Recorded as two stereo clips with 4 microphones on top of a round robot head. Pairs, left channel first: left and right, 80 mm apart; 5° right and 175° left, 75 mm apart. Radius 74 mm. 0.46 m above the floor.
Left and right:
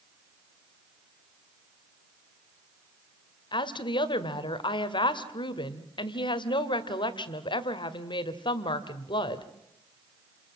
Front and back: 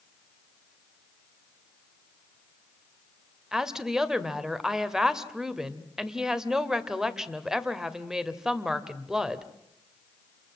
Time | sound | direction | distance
3.5 | a woman speaking | 90° left | 2.0 m